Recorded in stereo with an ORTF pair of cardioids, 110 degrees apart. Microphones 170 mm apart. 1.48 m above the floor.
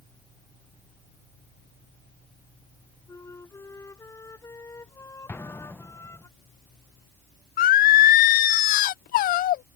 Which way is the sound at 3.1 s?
15° left.